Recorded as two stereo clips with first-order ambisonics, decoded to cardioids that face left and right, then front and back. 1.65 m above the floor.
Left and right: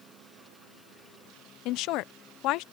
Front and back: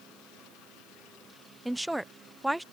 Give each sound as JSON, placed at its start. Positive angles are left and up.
{"t": 1.6, "sound": "a woman speaking", "azimuth_deg": 95}